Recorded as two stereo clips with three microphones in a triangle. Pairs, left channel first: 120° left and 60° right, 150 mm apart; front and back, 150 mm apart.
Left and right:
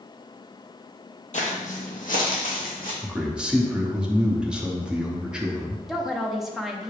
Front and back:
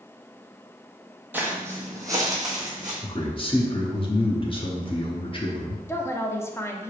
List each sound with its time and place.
1.3 s footsteps: 105° left, 1.0 m; by 2.9 s 120° left, 2 m
3.0 s a man speaking: 20° left, 0.8 m
5.9 s a woman speaking: 25° left, 0.5 m